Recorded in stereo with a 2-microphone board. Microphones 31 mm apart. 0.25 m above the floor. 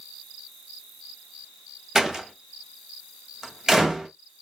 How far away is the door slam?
About 0.8 m.